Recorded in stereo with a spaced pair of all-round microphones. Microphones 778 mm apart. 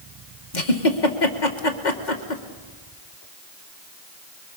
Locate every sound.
0.5 s a giggle: 75° left (ahead or behind), 2 m